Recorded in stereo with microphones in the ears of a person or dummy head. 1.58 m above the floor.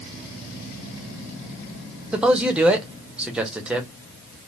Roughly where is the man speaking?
Centre.